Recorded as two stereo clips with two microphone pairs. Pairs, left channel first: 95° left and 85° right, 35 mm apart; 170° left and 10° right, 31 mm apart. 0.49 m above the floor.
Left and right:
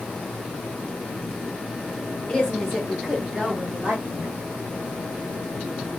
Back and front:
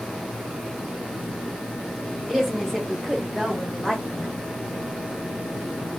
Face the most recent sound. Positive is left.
turn(degrees=-90)